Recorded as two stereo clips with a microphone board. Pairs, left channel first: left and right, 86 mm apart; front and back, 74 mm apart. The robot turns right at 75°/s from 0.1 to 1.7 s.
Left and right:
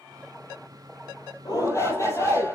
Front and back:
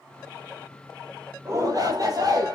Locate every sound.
1.4 s a shout: 125° left, 7 m; by 2.5 s 145° left, 7 m